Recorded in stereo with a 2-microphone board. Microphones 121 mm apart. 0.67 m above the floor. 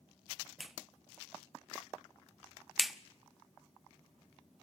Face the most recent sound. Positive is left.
turn(degrees=0)  # may be behind; listen again after turning